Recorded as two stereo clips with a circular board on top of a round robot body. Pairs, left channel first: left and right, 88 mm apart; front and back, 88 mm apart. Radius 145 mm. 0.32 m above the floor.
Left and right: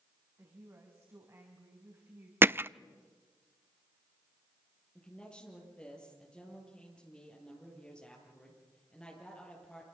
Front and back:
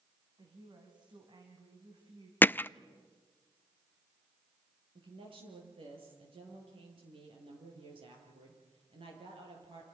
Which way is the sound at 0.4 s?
150° right.